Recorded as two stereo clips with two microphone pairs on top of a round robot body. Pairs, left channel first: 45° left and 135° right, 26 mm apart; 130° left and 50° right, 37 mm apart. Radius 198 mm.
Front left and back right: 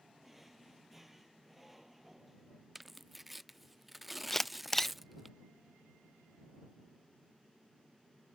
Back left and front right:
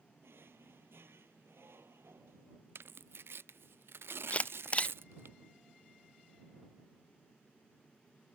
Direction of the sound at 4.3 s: 110° left.